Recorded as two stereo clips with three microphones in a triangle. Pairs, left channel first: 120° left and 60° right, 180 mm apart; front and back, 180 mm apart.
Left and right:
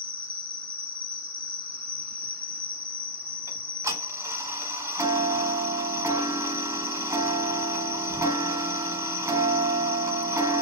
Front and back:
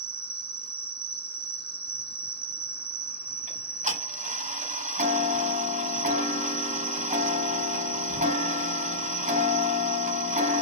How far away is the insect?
About 0.8 m.